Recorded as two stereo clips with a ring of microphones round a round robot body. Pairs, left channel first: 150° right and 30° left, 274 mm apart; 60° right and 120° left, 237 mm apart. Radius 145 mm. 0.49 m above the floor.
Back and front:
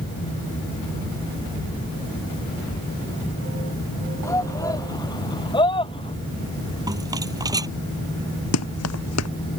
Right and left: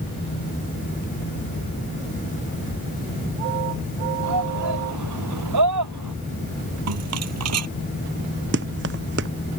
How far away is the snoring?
I don't hear snoring.